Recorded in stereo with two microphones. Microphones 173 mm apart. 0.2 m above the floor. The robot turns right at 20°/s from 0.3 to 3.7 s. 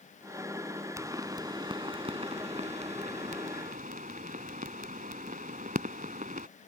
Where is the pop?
20° right (ahead or behind); by 6.5 s 50° right (ahead or behind).